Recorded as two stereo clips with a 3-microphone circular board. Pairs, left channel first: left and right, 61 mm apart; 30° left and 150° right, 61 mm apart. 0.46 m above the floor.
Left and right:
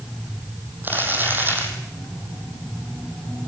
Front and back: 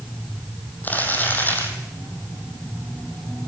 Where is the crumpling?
35° right, 4 m.